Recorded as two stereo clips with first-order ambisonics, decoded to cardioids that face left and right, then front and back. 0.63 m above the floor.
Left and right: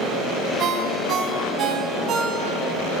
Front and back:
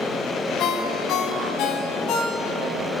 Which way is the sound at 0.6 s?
40° right.